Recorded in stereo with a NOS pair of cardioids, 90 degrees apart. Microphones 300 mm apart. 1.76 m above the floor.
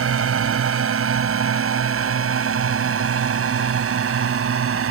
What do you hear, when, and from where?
0.0 s a drone: 45° right